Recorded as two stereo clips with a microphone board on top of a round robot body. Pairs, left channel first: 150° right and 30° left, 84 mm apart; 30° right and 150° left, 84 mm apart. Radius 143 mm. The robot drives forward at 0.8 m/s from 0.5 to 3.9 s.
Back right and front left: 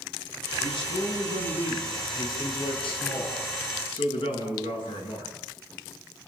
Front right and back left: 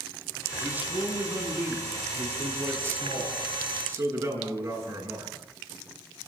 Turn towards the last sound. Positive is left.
turn(degrees=-150)